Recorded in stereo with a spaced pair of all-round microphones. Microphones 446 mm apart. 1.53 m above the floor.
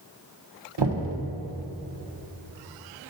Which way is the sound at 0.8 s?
65° right (ahead or behind).